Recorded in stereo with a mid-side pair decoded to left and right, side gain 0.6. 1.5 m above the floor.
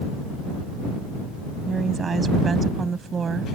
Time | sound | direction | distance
1.7 | a woman speaking | 30° right | ?